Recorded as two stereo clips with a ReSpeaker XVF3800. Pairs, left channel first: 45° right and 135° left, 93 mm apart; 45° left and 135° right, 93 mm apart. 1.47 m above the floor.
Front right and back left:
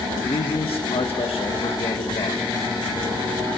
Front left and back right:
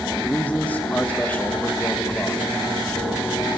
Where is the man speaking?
30° right, 1.7 m.